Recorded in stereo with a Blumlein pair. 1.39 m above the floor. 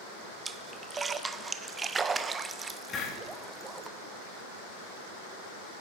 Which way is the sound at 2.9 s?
20° left.